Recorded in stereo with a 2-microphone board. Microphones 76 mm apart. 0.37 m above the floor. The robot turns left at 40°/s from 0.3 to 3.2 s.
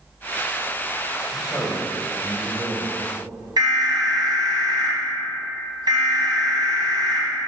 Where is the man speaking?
100° left, 1.3 m; by 2.9 s 35° left, 1.3 m.